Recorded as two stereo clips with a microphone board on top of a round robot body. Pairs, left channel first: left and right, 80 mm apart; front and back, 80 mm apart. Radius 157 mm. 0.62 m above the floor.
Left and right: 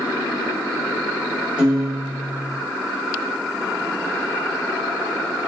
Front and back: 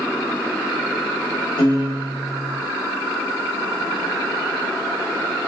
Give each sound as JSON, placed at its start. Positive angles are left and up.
{"t": 1.6, "sound": "a piano", "azimuth_deg": -15, "distance_m": 1.6}